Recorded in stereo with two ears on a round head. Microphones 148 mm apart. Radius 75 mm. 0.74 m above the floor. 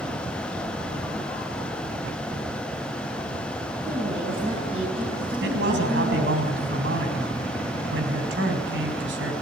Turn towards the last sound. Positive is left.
turn(degrees=-80)